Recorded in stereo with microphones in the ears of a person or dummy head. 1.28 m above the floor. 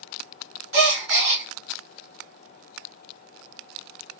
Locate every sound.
0.7 s a gasp: 40° right (ahead or behind), 1.5 m